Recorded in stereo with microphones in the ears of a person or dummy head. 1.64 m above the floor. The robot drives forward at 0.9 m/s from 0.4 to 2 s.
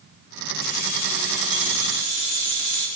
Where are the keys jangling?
55° left (ahead or behind), 2.5 m; by 2.9 s 35° left (ahead or behind), 3.5 m.